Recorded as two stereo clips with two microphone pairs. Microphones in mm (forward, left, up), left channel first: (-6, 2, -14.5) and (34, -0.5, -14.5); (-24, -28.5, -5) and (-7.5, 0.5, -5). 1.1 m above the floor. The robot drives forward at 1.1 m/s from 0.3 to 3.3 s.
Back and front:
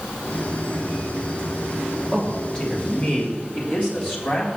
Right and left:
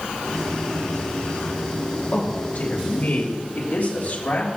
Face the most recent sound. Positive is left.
turn(degrees=-145)